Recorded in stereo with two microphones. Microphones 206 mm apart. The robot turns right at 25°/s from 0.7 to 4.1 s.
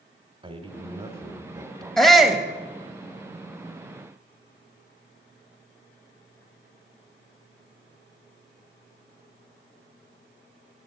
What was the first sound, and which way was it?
A man speaking, 30° right (ahead or behind).